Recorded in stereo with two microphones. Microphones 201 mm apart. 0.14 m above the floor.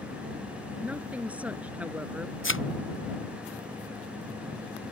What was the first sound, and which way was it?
A woman speaking, 5° right (ahead or behind).